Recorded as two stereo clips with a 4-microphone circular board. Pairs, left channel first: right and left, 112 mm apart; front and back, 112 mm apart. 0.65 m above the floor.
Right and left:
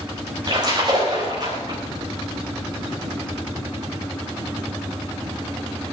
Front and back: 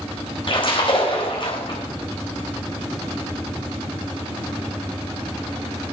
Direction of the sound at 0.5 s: 40° left.